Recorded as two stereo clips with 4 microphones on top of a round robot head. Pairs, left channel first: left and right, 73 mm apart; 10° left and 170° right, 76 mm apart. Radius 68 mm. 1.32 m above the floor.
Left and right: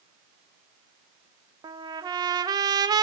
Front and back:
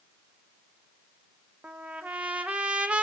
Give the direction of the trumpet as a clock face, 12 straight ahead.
3 o'clock.